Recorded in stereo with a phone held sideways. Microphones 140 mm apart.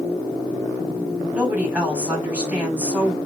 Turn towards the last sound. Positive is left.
turn(degrees=-10)  # may be behind; listen again after turning